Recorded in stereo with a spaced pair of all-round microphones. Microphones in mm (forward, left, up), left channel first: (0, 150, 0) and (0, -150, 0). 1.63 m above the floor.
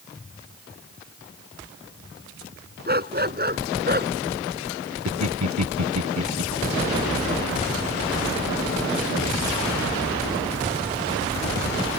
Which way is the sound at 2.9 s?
30° right (ahead or behind).